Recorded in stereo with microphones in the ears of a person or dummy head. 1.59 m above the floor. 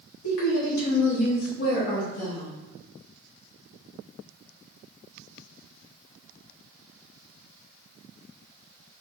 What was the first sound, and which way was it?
A woman speaking, 70° left (ahead or behind).